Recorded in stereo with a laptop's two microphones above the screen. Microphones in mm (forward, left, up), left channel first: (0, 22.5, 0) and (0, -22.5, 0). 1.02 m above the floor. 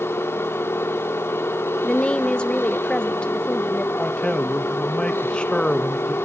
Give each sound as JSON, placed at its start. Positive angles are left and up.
{"t": 0.0, "sound": "a machine running", "side_deg": 70, "distance_m": 1.0}
{"t": 1.8, "sound": "a woman speaking", "side_deg": 25, "distance_m": 0.5}
{"t": 4.0, "sound": "a man speaking", "side_deg": 25, "distance_m": 1.1}